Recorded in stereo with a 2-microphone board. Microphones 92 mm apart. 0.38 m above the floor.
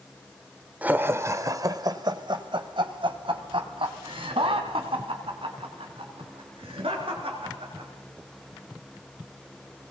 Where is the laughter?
15° right (ahead or behind), 1.4 m; by 7.9 s 80° right, 7 m.